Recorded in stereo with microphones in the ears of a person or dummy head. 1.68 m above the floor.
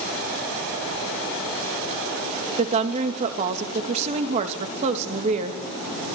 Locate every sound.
2.6 s a woman speaking: 35° right (ahead or behind), 2.5 m